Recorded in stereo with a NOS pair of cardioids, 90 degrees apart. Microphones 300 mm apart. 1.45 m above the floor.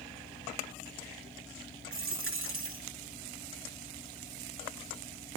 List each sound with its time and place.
0.0 s a fan: 10° left, 2 m
1.9 s a dropped coin: 45° right, 4.5 m